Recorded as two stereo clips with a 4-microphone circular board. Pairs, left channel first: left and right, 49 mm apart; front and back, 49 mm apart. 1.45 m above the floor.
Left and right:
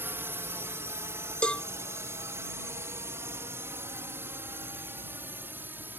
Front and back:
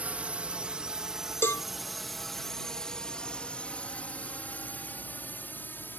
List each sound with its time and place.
0.0 s a drone: 120° right; by 6.0 s 45° right
1.4 s a cowbell: 25° left